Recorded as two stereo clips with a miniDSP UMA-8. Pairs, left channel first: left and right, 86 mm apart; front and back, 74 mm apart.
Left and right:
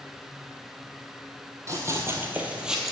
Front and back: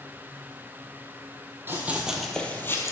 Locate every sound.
1.7 s running footsteps: 130° right, 1.6 m; by 2.9 s straight ahead, 1.5 m